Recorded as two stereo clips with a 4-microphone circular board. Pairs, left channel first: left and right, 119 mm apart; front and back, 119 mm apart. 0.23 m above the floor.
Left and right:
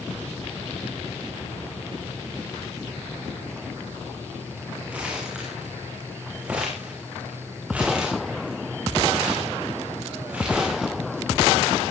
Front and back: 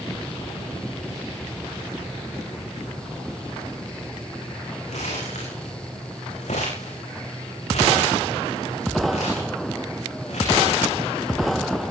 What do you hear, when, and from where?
4.9 s crumpling: 10° right, 8.5 m